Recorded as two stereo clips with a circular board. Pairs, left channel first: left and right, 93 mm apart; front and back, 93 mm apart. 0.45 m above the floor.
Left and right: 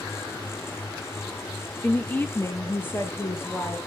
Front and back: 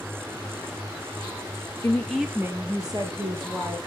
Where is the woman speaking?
30° left, 0.9 m; by 3.8 s 160° left, 2 m.